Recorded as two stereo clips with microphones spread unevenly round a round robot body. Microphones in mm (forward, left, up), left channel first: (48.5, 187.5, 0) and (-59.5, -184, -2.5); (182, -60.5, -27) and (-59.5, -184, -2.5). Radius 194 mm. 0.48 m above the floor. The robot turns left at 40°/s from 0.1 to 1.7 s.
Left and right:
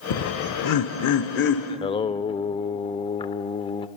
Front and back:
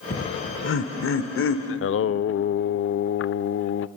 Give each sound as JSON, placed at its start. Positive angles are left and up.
{"t": 0.1, "sound": "laughter", "azimuth_deg": 75, "distance_m": 1.1}
{"t": 1.7, "sound": "singing", "azimuth_deg": 0, "distance_m": 0.5}